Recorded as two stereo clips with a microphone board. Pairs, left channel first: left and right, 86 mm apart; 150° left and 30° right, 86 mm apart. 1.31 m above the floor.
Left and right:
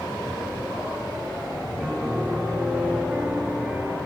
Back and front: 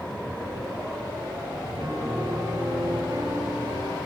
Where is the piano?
5° right, 2.5 m.